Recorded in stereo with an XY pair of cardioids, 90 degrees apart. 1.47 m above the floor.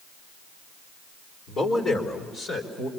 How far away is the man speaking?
About 3.5 m.